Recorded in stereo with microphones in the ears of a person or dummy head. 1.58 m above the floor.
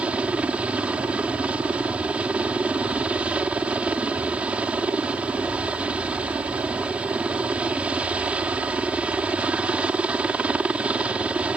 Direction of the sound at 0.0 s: 5° right (ahead or behind).